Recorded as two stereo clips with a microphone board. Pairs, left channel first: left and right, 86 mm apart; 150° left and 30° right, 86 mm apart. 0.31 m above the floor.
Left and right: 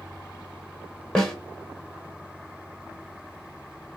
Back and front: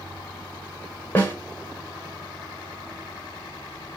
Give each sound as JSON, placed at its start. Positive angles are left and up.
{"t": 1.1, "sound": "a snare drum", "azimuth_deg": 150, "distance_m": 0.9}